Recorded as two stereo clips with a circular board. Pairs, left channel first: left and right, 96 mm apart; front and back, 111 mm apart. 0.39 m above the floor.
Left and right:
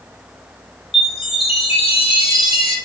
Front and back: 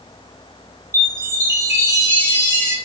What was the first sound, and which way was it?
A chime, 115° left.